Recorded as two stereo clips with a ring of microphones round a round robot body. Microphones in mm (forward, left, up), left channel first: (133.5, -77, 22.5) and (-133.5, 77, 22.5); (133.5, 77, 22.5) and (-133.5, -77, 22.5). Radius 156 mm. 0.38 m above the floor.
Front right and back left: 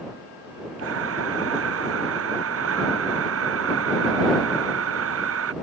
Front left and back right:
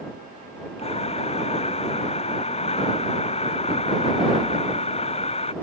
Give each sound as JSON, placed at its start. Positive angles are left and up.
{"t": 0.8, "sound": "breathing", "azimuth_deg": 100}